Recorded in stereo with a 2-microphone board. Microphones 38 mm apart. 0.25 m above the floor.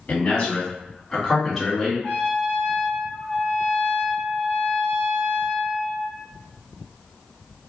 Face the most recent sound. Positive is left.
turn(degrees=35)  # may be behind; listen again after turning